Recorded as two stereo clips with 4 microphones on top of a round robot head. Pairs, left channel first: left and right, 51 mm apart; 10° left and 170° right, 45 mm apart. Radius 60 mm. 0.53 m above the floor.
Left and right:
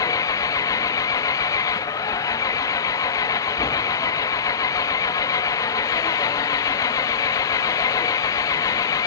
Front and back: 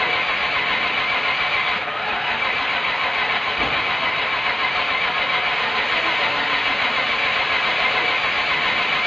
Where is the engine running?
95° left.